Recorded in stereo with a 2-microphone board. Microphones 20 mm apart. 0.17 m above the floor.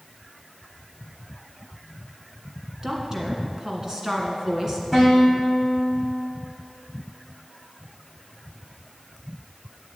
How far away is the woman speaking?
About 1.8 m.